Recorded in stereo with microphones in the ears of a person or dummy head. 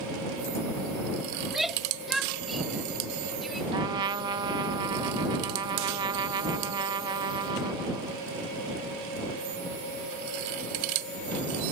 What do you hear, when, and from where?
1.4 s a shout: centre (ahead or behind); by 3.6 s 5° left (ahead or behind)
3.7 s a trumpet: 25° right (ahead or behind)